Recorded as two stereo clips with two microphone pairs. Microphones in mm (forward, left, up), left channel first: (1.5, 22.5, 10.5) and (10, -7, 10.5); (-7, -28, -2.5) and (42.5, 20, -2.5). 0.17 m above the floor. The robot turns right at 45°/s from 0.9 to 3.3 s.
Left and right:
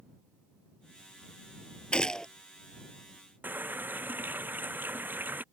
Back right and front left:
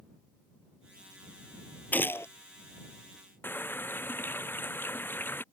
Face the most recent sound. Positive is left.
turn(degrees=-75)